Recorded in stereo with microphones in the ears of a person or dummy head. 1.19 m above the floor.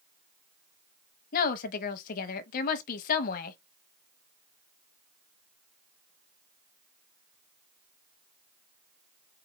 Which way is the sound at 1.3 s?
55° left (ahead or behind).